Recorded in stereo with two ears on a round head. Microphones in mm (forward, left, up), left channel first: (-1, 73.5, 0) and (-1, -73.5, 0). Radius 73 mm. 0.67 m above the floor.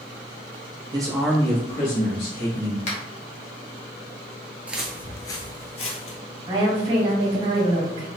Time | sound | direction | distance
0.9 | a man speaking | 30° right (ahead or behind) | 0.8 m
2.9 | a finger snap | 45° left (ahead or behind) | 1.1 m
4.7 | footsteps | 10° right (ahead or behind) | 0.7 m
6.5 | a woman speaking | 35° right (ahead or behind) | 1.6 m